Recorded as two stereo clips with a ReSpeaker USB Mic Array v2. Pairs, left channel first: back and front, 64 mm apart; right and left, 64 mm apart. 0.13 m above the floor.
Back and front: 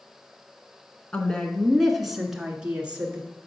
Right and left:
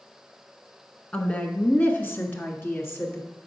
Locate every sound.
1.1 s a woman speaking: 135° right, 1.2 m; by 3.3 s 60° right, 1.8 m